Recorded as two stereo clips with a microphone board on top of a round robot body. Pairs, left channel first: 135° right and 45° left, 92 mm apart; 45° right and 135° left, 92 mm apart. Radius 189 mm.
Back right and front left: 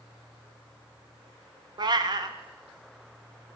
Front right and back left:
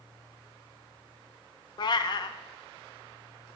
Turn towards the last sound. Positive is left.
turn(degrees=0)